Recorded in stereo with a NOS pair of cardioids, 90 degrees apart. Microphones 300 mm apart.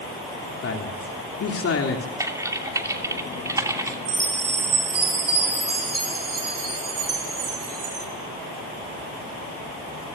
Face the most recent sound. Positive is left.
turn(degrees=-50)